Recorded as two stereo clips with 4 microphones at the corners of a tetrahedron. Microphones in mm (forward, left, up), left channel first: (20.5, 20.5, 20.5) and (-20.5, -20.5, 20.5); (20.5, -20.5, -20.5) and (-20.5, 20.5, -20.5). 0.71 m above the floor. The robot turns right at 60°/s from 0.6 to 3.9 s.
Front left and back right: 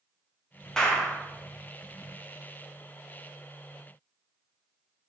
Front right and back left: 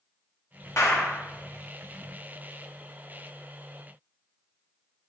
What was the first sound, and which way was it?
A clap, 35° right.